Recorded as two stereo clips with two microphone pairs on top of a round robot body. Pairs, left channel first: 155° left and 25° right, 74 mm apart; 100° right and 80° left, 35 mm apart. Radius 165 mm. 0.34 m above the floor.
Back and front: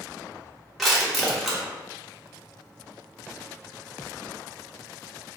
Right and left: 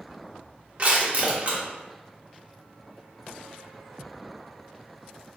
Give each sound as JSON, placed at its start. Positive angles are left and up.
{"t": 0.8, "sound": "crushing", "azimuth_deg": 65, "distance_m": 1.5}